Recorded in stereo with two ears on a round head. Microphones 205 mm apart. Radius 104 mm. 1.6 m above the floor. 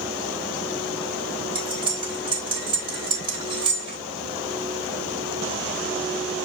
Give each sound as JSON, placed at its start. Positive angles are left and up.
{"t": 1.6, "sound": "cutlery clinking", "side_deg": -20, "distance_m": 4.0}